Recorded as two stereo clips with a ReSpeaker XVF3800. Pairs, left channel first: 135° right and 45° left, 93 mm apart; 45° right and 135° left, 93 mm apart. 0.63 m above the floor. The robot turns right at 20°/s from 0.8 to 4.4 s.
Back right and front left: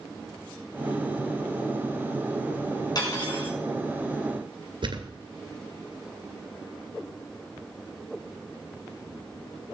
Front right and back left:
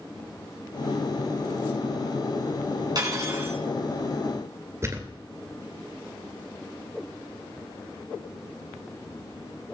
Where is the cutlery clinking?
Straight behind, 4 m; by 3.6 s 165° right, 4 m.